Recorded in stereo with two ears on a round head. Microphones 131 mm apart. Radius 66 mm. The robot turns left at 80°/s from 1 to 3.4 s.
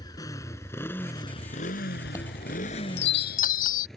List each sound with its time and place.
0.0 s a motorcycle: 30° left (ahead or behind); by 4.0 s 5° left (ahead or behind)
2.0 s a chime: 15° left (ahead or behind); by 3.9 s 60° left (ahead or behind)